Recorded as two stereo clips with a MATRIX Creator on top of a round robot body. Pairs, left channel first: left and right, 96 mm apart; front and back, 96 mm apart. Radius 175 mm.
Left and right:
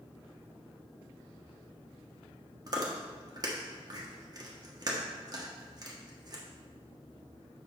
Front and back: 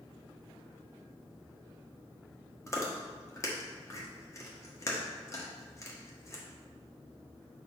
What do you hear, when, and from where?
2.7 s chewing: 50° right, 1.6 m